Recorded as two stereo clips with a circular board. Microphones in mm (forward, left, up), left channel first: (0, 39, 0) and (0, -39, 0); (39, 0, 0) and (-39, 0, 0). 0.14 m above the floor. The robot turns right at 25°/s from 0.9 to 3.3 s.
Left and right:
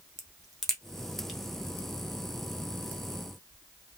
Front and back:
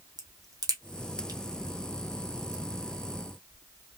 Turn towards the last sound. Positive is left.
turn(degrees=-125)